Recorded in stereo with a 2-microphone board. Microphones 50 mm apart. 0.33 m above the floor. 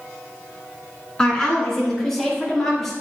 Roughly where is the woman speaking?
Centre.